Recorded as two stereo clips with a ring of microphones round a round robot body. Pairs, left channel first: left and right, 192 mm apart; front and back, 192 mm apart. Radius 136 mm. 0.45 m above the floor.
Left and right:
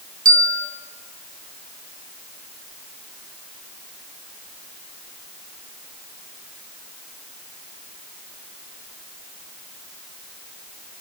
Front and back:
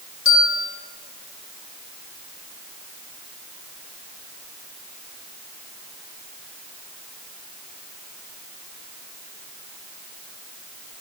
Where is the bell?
45° right, 1.8 m.